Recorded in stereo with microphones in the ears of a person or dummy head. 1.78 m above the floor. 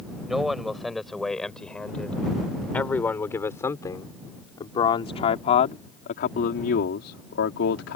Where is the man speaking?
5° right (ahead or behind); by 8.0 s 75° left (ahead or behind).